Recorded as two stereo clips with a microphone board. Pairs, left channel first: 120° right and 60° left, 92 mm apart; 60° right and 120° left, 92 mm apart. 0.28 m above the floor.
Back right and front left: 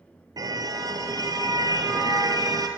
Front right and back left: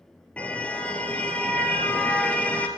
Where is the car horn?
15° left, 2.5 m.